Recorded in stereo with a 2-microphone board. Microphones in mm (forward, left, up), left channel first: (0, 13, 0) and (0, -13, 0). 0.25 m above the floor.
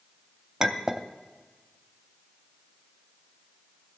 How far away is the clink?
About 0.6 m.